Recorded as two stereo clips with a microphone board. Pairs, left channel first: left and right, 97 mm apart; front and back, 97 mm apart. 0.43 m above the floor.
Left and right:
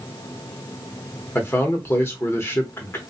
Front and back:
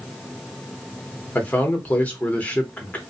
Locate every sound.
1.4 s a man speaking: 55° left, 0.8 m